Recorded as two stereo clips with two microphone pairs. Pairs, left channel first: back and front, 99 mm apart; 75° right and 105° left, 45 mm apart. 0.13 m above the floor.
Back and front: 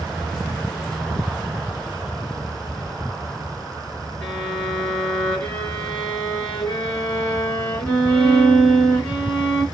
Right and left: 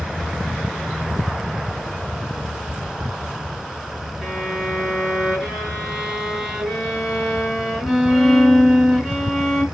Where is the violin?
140° right, 1.4 m.